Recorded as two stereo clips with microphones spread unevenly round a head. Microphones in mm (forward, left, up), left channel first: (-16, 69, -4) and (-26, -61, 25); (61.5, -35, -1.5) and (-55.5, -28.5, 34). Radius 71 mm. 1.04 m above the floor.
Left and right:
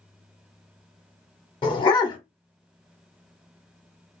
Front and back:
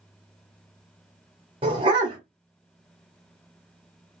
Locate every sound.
1.6 s a dog barking: 145° left, 0.9 m